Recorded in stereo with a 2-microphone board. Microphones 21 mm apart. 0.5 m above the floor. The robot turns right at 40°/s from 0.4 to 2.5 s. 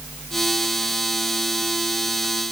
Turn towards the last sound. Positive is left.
No sound to turn to.